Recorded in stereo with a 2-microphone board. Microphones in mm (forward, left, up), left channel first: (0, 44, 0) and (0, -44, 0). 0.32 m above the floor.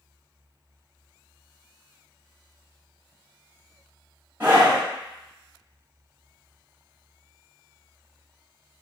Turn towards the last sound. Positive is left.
turn(degrees=-25)  # may be behind; listen again after turning